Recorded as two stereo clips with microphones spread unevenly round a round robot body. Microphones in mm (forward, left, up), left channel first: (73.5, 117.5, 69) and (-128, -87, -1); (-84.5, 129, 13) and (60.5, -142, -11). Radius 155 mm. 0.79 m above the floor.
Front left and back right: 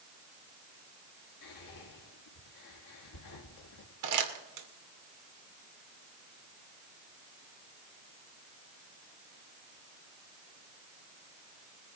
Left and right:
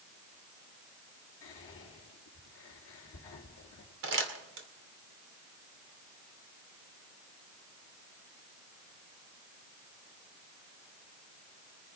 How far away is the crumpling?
About 2.5 m.